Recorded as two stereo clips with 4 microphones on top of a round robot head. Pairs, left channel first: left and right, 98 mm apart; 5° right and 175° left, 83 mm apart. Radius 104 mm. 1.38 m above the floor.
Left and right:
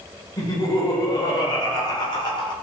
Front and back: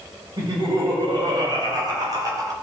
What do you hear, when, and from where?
0.4 s laughter: 140° left, 5.5 m; by 2.5 s 130° left, 4.5 m